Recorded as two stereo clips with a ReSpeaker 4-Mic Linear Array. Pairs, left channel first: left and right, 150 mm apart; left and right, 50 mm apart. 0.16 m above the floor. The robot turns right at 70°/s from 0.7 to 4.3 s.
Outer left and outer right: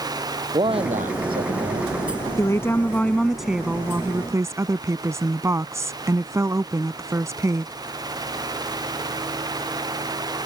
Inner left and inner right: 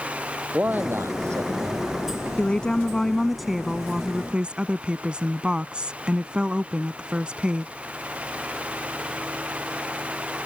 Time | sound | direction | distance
0.5 | a man speaking | 145° right | ?
2.4 | a woman speaking | 20° left (ahead or behind) | ?